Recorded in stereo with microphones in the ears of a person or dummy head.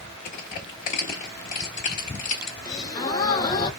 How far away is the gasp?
About 0.6 m.